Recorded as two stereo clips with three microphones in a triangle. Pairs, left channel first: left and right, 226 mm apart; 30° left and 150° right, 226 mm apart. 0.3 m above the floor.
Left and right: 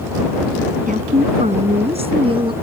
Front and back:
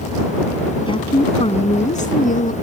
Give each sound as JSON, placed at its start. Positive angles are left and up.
{"t": 0.9, "sound": "a woman speaking", "azimuth_deg": -40}